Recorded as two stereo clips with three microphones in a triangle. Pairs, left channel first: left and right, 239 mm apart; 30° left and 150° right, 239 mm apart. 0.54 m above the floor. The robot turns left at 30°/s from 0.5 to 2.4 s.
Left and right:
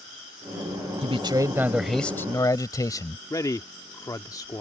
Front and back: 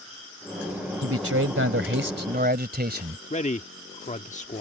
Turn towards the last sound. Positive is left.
turn(degrees=30)